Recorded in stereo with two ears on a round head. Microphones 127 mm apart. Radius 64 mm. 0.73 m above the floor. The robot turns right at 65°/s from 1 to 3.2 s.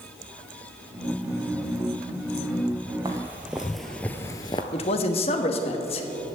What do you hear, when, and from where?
3.0 s footsteps: 25° right (ahead or behind), 1.3 m; by 4.6 s 35° left (ahead or behind), 0.8 m
4.7 s a man speaking: 45° left (ahead or behind), 1.2 m